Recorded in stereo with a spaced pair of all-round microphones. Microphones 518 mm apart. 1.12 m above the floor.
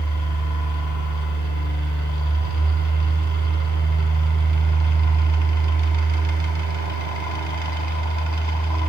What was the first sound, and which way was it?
A fan, 35° right (ahead or behind).